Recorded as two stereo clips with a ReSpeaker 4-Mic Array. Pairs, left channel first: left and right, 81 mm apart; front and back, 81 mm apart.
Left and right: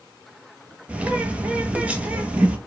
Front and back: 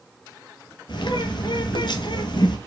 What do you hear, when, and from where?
0.9 s a bird: 15° right, 0.8 m